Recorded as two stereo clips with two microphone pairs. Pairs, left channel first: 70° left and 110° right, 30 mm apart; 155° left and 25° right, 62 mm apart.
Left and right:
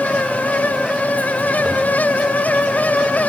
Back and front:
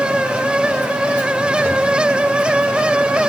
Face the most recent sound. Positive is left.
turn(degrees=-160)